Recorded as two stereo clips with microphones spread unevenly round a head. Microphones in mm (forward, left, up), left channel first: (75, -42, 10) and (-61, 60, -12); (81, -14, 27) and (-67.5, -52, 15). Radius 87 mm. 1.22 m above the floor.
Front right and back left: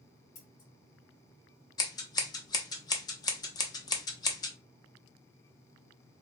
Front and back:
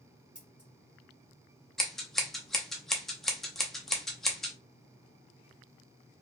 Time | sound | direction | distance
0.3 | scissors | 85° right | 1.6 m
1.8 | scissors | 65° right | 0.7 m